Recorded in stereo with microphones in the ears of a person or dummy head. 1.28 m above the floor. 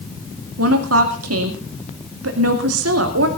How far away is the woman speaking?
About 2 m.